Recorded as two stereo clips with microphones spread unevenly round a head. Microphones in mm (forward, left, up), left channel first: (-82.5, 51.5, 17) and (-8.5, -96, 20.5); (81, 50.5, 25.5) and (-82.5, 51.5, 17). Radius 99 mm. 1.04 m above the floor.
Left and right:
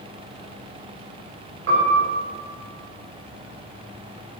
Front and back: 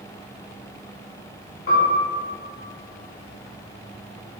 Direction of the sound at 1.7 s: 40° right.